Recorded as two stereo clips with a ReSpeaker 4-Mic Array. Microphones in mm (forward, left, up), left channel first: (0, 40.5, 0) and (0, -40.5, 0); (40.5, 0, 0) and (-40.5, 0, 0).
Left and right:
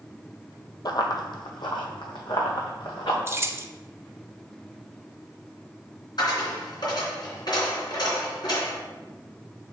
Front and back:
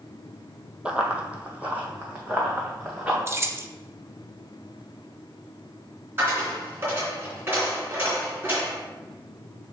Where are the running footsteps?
105° left, 0.9 m; by 3.2 s 110° left, 2.5 m.